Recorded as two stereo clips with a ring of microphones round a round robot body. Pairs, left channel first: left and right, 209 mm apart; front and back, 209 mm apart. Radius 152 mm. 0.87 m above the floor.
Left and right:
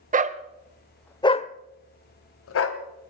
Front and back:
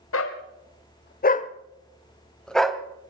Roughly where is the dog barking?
Ahead right.